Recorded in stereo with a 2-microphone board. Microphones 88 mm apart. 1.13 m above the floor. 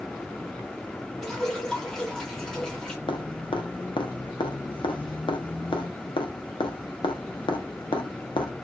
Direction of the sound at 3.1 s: 65° left (ahead or behind).